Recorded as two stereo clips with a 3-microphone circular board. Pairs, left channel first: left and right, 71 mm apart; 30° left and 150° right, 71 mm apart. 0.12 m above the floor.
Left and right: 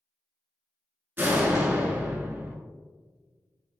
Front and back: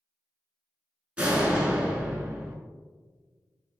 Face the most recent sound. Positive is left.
turn(degrees=-95)